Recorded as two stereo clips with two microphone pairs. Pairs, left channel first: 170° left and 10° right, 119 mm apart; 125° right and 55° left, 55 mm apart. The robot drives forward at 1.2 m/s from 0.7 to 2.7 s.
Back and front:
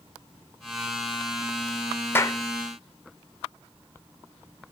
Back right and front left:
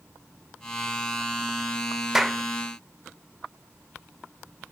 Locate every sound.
2.1 s a clap: 130° left, 0.6 m; by 2.4 s 160° left, 0.8 m